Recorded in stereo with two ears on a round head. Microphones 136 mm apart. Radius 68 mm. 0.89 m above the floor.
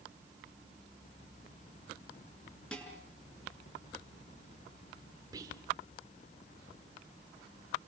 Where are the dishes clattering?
5° left (ahead or behind), 7 m.